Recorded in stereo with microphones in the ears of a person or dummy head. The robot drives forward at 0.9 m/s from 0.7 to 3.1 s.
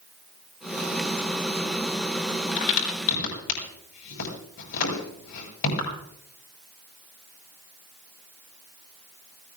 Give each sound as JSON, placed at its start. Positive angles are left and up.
{"t": 2.6, "sound": "a crack", "side_deg": 70, "distance_m": 7.5}